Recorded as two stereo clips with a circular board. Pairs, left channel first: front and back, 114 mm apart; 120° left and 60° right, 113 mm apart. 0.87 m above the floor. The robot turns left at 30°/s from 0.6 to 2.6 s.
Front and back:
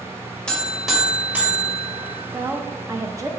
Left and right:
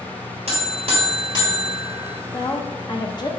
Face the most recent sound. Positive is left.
turn(degrees=135)